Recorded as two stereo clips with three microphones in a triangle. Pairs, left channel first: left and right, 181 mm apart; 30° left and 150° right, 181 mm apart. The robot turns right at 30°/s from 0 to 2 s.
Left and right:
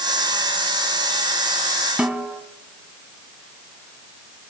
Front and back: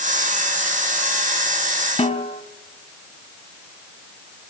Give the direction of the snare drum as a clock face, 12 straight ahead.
12 o'clock.